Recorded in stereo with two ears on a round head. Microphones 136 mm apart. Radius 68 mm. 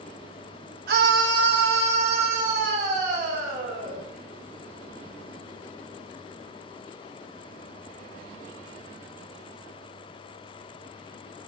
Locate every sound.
0.9 s a scream: 65° right (ahead or behind), 0.9 m; by 4.0 s 70° right (ahead or behind), 4.5 m